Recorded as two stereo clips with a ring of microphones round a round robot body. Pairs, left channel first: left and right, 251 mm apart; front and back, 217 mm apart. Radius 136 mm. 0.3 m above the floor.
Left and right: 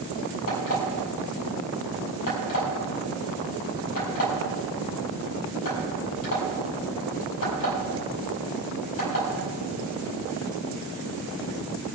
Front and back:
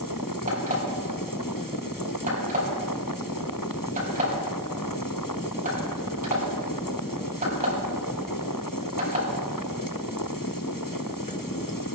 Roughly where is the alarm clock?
Behind left.